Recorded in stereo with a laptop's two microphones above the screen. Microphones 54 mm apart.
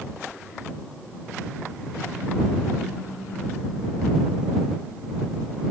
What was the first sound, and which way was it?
Only background noise.